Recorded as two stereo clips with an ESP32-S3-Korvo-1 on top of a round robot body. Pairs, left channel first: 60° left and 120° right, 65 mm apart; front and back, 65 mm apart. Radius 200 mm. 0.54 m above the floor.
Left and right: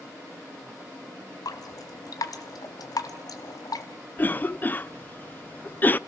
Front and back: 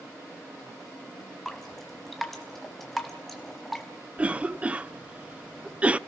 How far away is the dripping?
About 1.2 m.